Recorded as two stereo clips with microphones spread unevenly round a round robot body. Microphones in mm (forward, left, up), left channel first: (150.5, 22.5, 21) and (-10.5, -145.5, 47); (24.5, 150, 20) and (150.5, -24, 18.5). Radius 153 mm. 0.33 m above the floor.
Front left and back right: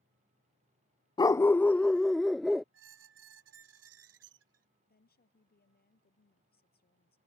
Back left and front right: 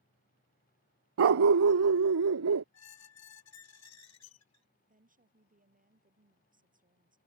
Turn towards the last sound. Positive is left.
turn(degrees=-5)